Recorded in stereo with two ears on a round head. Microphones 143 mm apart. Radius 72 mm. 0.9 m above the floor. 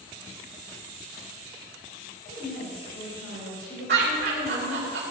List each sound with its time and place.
2.2 s a woman speaking: 85° left, 4.5 m
3.9 s laughter: 70° right (ahead or behind), 3.5 m